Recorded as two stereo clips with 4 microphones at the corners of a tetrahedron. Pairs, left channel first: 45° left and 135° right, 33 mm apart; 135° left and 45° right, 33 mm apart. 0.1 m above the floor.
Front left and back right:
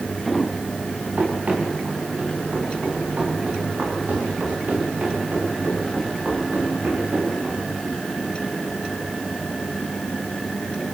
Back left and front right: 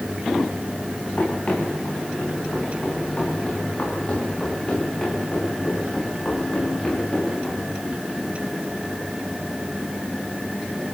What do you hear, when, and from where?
1.2 s running footsteps: 175° right, 9.5 m; by 7.6 s 155° right, 11.5 m